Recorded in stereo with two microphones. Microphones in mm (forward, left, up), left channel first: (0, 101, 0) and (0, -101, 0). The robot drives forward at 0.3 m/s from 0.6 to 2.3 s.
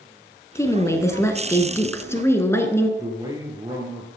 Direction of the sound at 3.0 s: 20° right (ahead or behind).